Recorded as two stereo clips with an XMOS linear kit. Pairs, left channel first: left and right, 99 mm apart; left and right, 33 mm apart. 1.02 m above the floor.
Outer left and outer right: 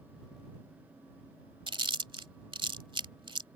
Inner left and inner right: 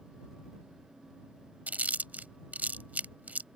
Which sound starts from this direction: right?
Chewing, at 1.7 s.